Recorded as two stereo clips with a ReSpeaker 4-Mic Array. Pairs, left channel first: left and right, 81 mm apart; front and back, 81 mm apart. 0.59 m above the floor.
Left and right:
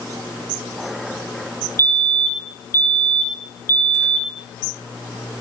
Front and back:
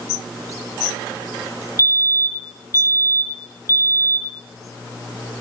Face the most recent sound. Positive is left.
turn(degrees=40)